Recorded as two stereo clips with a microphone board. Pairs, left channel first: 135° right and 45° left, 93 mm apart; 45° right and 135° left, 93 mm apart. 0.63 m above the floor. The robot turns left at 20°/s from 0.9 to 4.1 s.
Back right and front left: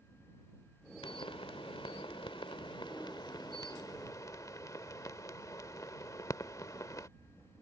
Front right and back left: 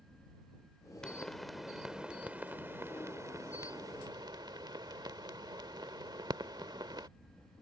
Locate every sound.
1.0 s a pop: 125° right; by 7.1 s 175° left